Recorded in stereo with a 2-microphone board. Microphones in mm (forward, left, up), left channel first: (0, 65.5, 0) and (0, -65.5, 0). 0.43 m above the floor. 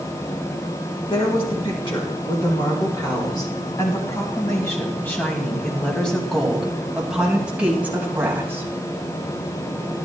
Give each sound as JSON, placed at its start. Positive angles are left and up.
{"t": 1.1, "sound": "a woman speaking", "side_deg": 45, "distance_m": 4.5}